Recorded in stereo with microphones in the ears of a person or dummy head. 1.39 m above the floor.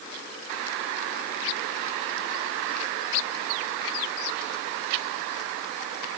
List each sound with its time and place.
Only background noise.